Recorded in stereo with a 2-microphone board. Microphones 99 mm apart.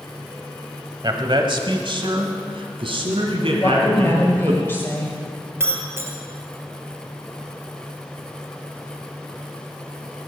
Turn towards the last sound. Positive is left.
turn(degrees=-25)  # may be behind; listen again after turning